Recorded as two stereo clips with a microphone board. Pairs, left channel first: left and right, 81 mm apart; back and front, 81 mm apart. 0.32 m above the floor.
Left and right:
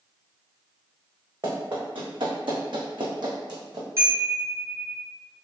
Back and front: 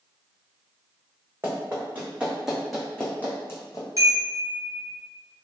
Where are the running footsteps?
60° right, 1.7 m; by 3.9 s 130° right, 1.2 m.